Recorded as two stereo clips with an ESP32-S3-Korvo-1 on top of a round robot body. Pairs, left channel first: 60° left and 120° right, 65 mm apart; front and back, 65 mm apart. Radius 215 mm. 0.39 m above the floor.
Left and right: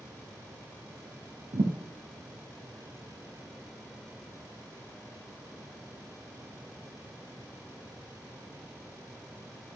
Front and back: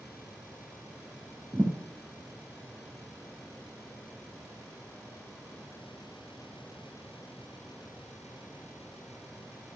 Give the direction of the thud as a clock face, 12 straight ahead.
3 o'clock.